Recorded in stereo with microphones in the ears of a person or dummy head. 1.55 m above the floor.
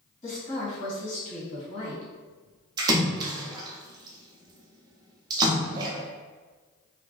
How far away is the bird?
I don't hear a bird.